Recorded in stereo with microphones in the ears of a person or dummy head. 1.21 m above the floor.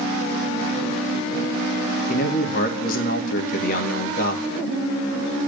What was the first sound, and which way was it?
A man speaking, 45° left (ahead or behind).